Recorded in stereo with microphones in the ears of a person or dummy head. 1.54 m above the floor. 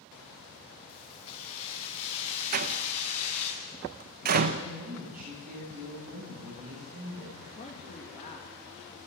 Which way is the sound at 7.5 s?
40° left (ahead or behind).